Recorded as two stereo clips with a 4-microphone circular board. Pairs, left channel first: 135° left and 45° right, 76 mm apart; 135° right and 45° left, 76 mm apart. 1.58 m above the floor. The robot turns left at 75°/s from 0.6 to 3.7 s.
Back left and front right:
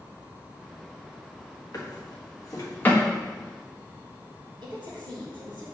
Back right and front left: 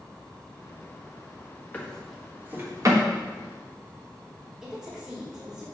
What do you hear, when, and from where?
1.7 s a drawer: 160° left, 1.3 m; by 3.0 s 65° left, 1.3 m
4.6 s a woman speaking: 35° right, 3 m